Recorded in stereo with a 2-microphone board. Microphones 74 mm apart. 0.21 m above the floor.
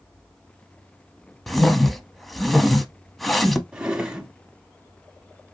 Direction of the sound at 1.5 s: Centre (ahead or behind).